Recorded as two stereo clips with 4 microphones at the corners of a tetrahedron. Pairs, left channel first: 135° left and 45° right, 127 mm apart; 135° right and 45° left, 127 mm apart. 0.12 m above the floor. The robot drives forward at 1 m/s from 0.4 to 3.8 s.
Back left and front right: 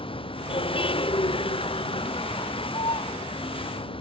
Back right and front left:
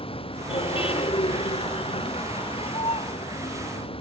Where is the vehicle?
Straight behind.